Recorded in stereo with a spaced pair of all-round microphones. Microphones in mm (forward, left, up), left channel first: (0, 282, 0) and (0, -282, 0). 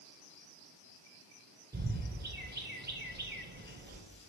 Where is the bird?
20° right (ahead or behind), 0.6 m.